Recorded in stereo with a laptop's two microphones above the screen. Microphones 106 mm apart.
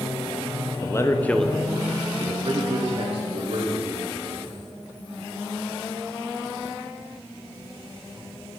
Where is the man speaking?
30° left (ahead or behind), 0.9 m; by 4.6 s 70° right (ahead or behind), 2 m.